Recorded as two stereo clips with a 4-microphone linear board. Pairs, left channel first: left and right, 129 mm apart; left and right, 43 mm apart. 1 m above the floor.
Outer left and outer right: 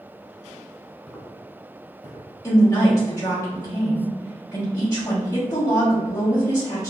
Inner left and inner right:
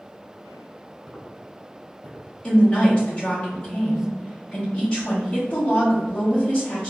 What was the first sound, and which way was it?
Footsteps, centre (ahead or behind).